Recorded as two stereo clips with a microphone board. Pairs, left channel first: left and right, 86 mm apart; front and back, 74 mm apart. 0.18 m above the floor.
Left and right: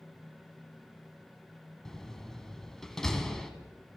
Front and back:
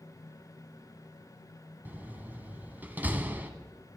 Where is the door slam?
165° left, 0.9 m.